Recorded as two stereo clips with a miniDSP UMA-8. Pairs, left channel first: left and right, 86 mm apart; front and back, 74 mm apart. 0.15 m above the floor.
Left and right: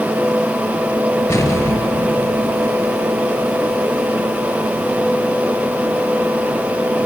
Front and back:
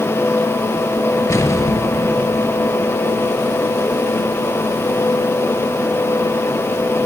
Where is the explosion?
40° left, 2.5 m.